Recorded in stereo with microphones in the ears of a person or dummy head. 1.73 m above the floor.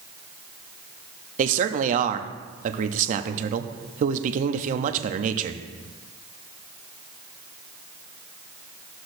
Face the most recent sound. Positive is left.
turn(degrees=-40)  # may be behind; listen again after turning